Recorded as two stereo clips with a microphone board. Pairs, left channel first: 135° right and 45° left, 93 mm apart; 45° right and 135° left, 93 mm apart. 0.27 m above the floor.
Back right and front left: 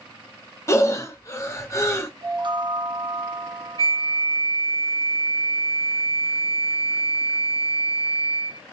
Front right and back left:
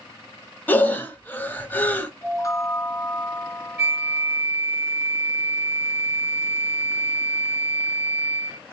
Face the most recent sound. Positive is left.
turn(degrees=-170)